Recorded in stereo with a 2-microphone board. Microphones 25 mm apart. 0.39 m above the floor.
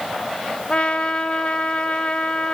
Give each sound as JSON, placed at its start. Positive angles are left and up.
{"t": 0.7, "sound": "a trumpet", "side_deg": 45, "distance_m": 1.0}